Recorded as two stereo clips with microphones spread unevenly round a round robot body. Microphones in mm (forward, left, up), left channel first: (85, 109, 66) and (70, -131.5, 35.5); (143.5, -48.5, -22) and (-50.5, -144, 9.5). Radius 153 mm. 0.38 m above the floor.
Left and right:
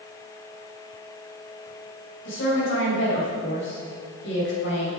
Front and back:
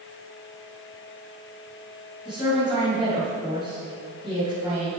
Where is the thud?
I don't hear a thud.